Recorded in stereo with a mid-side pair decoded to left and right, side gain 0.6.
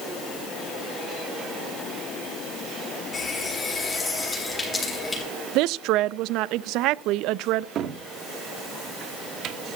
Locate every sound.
3.1 s a running tap: 15° left, 7.5 m
5.5 s a woman speaking: 70° right, 0.5 m
7.8 s a cupboard door: 55° right, 1.1 m